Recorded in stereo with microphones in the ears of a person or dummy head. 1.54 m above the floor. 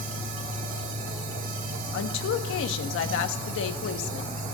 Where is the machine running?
55° right (ahead or behind), 1.9 m.